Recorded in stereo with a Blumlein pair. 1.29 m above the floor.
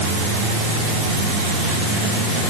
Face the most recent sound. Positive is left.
No sound to turn to.